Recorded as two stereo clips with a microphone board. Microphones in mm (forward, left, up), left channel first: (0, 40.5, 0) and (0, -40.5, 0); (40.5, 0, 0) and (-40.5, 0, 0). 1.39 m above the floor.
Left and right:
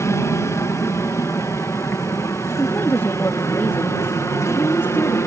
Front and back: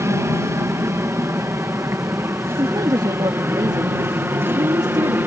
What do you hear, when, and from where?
0.0 s an aircraft: 135° left; by 5.3 s 125° left
2.5 s a woman speaking: 150° left